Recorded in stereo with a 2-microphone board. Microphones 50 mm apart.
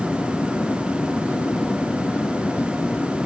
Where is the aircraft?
45° left (ahead or behind).